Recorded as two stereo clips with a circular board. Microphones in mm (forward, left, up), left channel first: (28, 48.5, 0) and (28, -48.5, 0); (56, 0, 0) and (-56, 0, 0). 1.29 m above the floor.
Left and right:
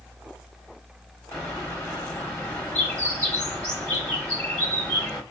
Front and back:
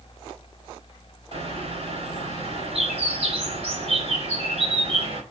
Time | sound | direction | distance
1.3 | a bird | 165° left | 4 m